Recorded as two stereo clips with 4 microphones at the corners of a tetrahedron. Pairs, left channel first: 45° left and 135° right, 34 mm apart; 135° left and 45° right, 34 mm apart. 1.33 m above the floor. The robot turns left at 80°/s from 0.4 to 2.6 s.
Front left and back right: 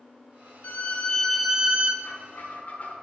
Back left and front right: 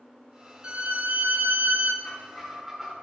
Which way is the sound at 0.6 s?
15° left.